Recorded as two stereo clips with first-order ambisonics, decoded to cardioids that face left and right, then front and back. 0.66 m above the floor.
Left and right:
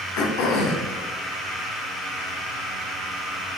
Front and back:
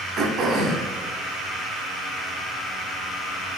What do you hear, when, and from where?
0.2 s throat clearing: 125° left, 0.5 m